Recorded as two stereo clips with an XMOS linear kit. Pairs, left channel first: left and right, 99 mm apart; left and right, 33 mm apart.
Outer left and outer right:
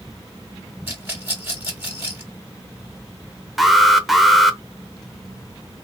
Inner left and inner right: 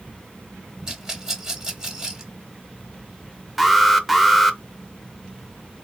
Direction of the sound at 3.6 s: Centre (ahead or behind).